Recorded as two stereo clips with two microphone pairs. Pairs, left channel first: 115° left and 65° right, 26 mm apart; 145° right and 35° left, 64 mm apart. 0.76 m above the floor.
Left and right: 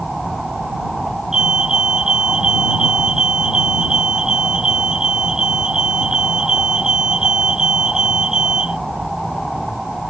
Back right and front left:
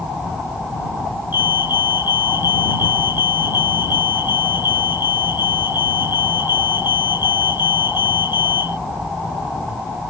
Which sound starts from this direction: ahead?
A fire alarm, at 1.3 s.